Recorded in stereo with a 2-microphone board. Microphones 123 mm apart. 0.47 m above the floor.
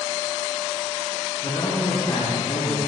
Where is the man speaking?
45° left (ahead or behind), 3.5 m.